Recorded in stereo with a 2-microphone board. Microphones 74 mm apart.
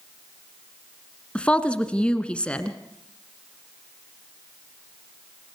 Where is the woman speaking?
15° left (ahead or behind), 1.3 m.